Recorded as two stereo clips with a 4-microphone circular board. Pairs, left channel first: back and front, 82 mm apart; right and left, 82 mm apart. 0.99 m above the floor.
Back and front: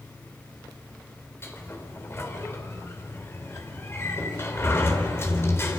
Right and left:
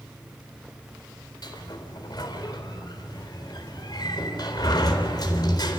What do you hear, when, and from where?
1.4 s a sliding door: 120° right, 3.5 m